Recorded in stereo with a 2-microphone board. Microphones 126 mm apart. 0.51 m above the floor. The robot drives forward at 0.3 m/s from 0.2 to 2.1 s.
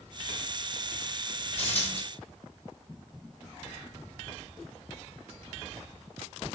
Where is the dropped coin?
60° left (ahead or behind), 1.7 m.